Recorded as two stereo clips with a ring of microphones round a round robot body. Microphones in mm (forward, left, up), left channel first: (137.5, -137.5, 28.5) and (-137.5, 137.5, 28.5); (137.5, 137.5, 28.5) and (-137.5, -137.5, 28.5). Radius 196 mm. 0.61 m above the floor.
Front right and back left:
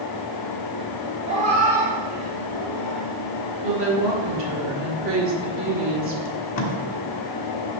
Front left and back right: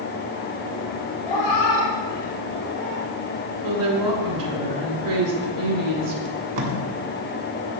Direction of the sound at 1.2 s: 60° left.